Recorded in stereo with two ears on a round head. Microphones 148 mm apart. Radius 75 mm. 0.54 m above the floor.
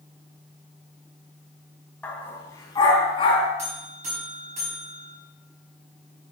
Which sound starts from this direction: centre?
A dog barking, at 2.0 s.